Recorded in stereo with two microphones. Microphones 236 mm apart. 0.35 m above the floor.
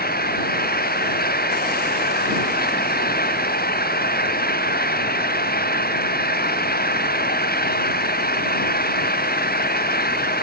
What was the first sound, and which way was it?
An engine running, 40° left (ahead or behind).